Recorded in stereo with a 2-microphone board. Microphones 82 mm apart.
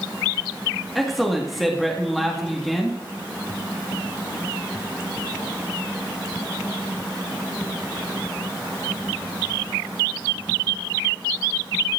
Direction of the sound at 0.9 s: Centre (ahead or behind).